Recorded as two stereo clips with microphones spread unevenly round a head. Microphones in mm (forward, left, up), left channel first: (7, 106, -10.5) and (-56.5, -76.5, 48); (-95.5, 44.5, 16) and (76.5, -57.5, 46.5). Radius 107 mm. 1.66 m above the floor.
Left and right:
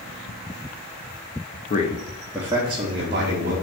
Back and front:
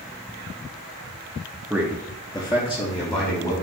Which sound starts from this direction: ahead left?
A man speaking, at 1.7 s.